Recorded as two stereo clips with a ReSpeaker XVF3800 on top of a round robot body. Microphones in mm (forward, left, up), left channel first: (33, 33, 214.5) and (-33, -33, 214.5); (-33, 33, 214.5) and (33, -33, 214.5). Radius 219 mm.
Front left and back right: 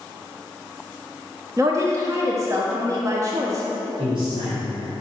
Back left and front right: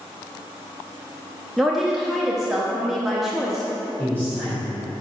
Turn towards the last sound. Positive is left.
turn(degrees=-150)